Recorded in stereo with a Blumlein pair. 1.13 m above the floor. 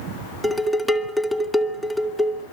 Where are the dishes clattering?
5° left, 2.0 m.